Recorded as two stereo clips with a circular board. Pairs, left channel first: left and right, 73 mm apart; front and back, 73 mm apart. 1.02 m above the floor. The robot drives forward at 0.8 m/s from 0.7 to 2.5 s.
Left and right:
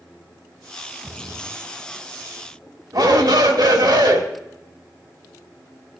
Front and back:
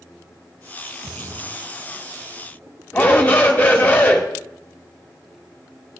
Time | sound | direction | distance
1.0 | a splash | 145° right | 0.8 m
2.9 | a shout | 70° right | 2.5 m